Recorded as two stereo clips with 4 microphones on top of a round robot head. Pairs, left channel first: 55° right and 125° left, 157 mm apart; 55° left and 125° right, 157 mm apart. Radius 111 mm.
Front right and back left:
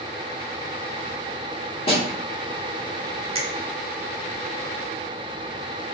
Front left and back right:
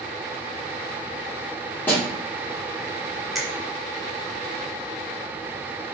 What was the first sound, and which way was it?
A snare drum, 20° right.